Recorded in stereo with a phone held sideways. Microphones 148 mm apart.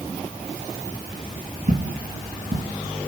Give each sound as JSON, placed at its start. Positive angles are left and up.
{"t": 1.7, "sound": "footsteps", "side_deg": -75, "distance_m": 4.5}